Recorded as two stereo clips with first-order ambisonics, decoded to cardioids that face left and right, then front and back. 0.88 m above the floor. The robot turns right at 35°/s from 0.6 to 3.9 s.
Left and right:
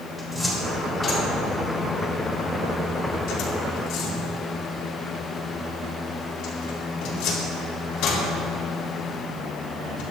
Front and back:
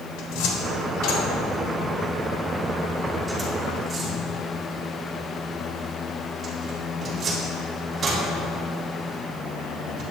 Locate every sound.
0.2 s a cupboard door: straight ahead, 3.5 m; by 10.0 s 115° left, 3.5 m